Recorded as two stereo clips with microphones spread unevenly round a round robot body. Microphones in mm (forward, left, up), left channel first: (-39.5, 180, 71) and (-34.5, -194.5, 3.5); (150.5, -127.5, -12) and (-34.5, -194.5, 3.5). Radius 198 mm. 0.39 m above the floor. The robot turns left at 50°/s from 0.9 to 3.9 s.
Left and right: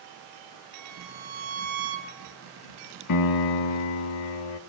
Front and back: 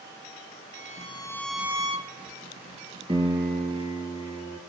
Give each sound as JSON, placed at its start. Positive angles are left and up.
{"t": 0.7, "sound": "a violin", "azimuth_deg": -40, "distance_m": 1.1}
{"t": 3.1, "sound": "a piano", "azimuth_deg": 130, "distance_m": 0.5}